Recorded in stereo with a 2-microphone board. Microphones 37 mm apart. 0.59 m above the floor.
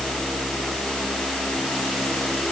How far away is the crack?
No crack in this recording.